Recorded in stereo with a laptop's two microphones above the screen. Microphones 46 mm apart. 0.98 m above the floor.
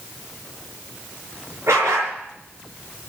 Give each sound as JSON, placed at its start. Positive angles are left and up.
{"t": 1.7, "sound": "a dog barking", "side_deg": -75, "distance_m": 5.5}